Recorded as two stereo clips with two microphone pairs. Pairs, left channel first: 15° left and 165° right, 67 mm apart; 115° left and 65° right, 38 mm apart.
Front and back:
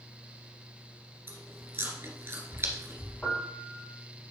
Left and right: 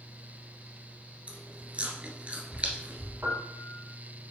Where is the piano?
55° right, 2 m.